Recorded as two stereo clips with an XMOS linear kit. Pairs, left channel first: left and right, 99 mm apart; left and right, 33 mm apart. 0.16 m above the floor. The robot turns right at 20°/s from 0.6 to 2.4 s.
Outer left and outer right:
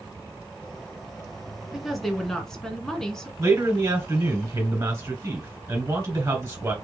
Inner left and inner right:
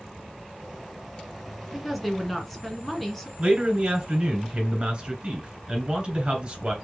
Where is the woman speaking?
5° right (ahead or behind), 1.4 m; by 3.3 s 5° left (ahead or behind), 1.4 m.